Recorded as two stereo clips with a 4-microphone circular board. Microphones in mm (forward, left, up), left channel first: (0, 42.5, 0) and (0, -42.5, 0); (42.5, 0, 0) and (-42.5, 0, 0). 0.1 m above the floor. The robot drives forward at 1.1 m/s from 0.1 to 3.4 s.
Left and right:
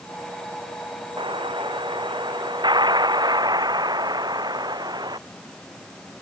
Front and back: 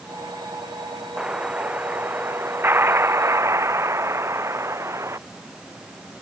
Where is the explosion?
100° right; by 5.2 s 125° right.